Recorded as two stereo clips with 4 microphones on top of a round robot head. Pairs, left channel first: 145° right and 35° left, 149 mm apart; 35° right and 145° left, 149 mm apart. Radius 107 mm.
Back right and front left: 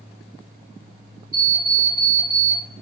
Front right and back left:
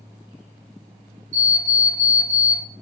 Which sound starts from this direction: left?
An alarm clock, at 1.3 s.